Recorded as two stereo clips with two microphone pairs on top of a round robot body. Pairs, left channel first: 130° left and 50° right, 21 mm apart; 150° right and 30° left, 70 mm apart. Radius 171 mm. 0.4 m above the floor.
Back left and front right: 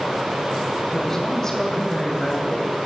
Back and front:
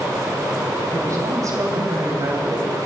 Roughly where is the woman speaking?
Ahead left.